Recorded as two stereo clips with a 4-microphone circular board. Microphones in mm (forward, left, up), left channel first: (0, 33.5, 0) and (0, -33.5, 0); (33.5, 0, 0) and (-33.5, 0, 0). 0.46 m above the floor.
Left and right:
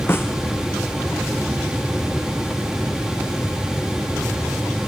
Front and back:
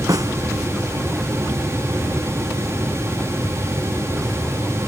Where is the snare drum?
150° left.